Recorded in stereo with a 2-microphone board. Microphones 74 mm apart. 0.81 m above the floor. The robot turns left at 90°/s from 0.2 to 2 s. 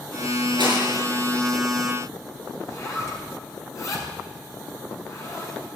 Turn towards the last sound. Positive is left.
turn(degrees=40)  # may be behind; listen again after turning